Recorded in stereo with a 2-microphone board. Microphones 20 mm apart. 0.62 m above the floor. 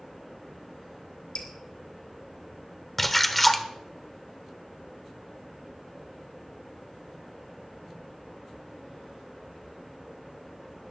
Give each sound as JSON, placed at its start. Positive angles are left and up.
{"t": 1.4, "sound": "dripping", "side_deg": 65, "distance_m": 2.5}
{"t": 3.0, "sound": "a splash", "side_deg": 10, "distance_m": 0.9}